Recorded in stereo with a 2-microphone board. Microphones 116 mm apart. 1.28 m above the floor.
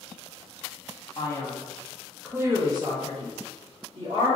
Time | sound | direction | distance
1.2 | a man speaking | 35° left (ahead or behind) | 0.8 m